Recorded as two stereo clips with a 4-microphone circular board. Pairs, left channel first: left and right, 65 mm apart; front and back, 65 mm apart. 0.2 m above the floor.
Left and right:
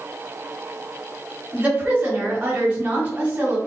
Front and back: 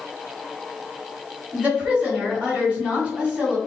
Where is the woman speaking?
140° right, 1.1 m.